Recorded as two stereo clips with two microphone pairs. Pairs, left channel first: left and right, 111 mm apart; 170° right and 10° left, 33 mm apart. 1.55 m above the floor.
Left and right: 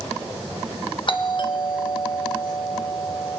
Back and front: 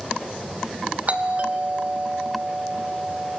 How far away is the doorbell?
About 2 m.